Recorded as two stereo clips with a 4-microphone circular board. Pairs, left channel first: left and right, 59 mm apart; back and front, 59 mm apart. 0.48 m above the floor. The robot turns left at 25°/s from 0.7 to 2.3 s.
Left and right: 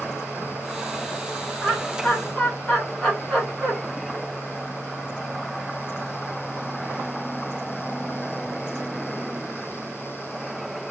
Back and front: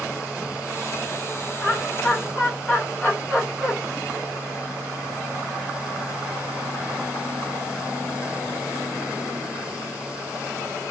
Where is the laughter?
150° left, 1.3 m; by 3.7 s 130° left, 1.3 m.